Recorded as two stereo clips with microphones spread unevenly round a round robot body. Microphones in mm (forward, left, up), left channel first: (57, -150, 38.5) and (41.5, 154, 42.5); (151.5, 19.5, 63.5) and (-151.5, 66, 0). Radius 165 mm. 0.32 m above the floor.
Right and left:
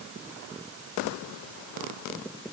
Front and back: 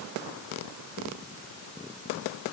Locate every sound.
Only background noise.